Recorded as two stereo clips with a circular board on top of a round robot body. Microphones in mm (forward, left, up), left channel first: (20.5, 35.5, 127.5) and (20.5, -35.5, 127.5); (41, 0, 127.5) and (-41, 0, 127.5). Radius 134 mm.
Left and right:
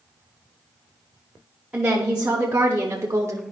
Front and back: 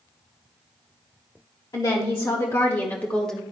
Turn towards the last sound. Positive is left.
turn(degrees=-85)